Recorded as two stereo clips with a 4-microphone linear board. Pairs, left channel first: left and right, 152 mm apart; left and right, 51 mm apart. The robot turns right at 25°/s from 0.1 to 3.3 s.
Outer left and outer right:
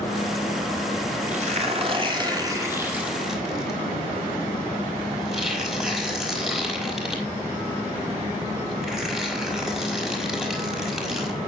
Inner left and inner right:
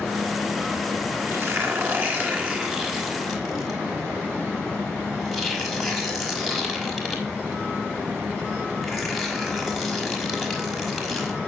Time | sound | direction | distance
1.3 | tearing paper | 55° right (ahead or behind) | 5.5 m